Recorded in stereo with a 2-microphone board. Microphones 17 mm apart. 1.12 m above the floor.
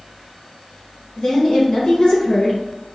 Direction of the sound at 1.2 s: 70° left (ahead or behind).